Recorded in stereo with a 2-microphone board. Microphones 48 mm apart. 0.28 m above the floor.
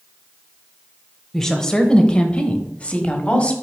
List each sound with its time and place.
1.3 s a woman speaking: 10° left (ahead or behind), 1.0 m; by 3.5 s 25° left (ahead or behind), 1.4 m